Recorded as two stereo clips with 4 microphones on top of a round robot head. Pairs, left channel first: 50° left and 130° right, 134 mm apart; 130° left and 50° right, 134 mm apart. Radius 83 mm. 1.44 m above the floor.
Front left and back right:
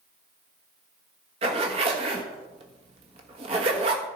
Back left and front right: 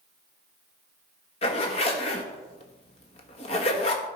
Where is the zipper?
Straight behind, 1.4 m.